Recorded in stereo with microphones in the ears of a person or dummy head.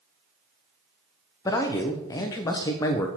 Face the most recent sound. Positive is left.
turn(degrees=15)  # may be behind; listen again after turning